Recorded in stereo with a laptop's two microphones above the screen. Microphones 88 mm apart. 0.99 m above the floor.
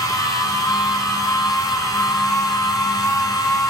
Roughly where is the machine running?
Left.